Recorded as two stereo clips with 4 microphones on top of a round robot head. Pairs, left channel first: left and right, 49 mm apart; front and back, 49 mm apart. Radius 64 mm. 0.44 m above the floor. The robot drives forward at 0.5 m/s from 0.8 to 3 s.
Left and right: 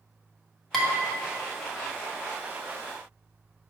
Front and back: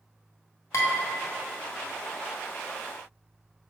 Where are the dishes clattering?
10° left, 1.3 m.